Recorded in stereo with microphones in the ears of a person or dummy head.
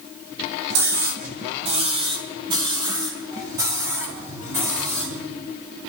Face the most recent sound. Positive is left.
turn(degrees=-10)  # may be behind; listen again after turning